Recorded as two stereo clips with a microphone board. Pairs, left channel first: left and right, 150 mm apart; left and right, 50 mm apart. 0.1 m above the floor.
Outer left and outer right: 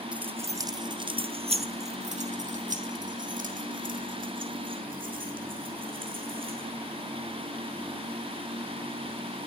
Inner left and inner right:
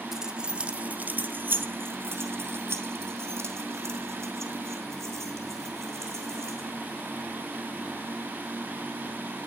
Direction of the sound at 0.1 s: 5° right (ahead or behind).